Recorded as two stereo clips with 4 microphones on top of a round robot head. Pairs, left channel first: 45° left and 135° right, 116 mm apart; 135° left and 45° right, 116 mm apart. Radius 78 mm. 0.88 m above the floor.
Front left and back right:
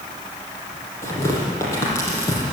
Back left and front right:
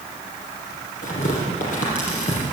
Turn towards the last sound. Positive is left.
turn(degrees=115)